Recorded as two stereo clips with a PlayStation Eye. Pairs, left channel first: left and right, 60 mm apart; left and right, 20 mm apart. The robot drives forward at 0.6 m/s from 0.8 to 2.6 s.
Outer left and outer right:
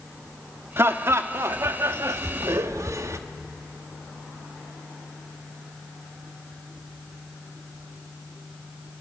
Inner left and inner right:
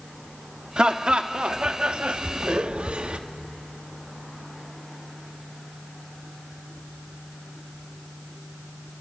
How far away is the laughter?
About 1.7 m.